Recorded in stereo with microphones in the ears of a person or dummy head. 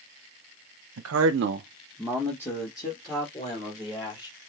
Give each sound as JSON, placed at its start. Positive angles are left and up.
{"t": 1.0, "sound": "a man speaking", "side_deg": -70, "distance_m": 0.9}